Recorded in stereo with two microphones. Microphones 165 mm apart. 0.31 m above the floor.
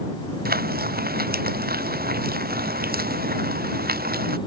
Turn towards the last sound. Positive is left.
turn(degrees=-65)  # may be behind; listen again after turning